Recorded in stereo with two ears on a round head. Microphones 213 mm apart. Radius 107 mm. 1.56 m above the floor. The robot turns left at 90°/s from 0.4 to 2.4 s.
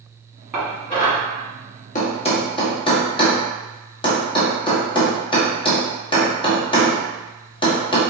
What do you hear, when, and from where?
0.5 s dishes clattering: 10° right (ahead or behind), 1.8 m; by 1.2 s 50° left (ahead or behind), 1.8 m
1.9 s a thud: 35° left (ahead or behind), 1.1 m; by 8.0 s 20° left (ahead or behind), 1.1 m